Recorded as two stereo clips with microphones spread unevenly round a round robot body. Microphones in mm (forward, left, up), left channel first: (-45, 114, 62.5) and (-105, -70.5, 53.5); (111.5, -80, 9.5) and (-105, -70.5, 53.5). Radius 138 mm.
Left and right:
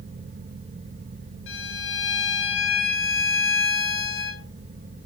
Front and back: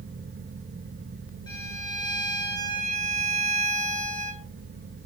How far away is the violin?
About 1.2 m.